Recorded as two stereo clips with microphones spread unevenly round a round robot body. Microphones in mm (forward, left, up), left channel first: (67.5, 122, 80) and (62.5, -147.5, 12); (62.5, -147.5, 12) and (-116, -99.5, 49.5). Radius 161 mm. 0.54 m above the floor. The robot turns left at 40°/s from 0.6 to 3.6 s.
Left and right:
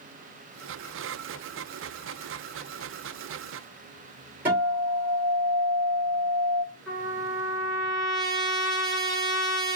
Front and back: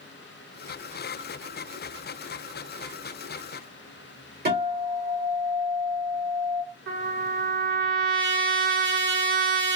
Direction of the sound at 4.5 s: 165° right.